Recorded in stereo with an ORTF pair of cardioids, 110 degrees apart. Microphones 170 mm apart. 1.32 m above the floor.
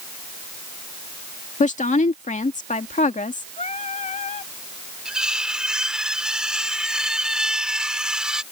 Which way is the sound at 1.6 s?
45° left.